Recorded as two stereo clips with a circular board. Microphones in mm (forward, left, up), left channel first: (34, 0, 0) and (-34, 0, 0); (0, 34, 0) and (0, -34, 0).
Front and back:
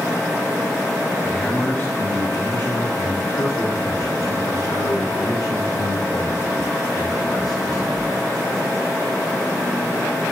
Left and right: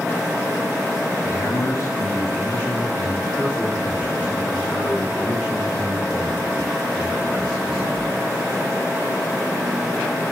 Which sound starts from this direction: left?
A man speaking, at 1.2 s.